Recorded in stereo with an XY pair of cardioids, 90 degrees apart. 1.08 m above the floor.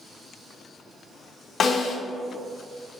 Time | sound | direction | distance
1.6 | a snare drum | 55° left | 1.2 m